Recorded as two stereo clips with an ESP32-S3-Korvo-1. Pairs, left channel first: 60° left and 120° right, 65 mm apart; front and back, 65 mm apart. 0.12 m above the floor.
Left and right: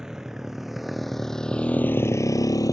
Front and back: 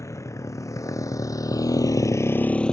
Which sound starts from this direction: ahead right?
A motorcycle, at 0.0 s.